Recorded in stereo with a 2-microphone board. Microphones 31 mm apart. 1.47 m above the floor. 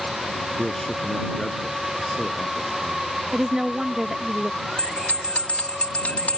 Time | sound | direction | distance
0.6 | a man speaking | 10° left (ahead or behind) | ?
3.3 | a woman speaking | 15° right (ahead or behind) | ?
4.8 | a bell | 55° left (ahead or behind) | ?